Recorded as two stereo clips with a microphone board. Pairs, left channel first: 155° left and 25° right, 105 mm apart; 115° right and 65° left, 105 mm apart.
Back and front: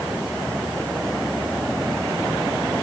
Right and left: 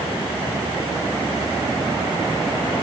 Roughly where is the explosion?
No explosion in this recording.